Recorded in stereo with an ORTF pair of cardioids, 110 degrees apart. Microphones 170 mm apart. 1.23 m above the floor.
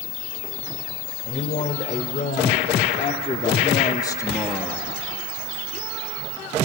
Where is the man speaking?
50° left, 4 m; by 4.9 s straight ahead, 1.4 m.